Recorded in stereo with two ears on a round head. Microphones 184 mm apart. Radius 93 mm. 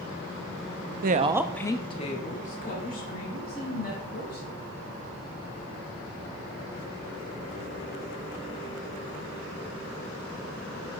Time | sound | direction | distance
1.0 | a woman speaking | 50° right (ahead or behind) | 0.6 m